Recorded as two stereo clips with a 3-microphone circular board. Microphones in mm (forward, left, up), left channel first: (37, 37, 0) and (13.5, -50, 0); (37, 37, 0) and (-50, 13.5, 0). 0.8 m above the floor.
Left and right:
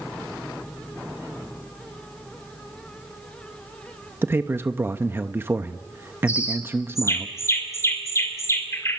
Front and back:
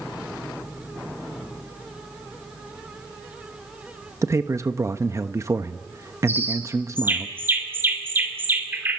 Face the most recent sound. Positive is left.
turn(degrees=130)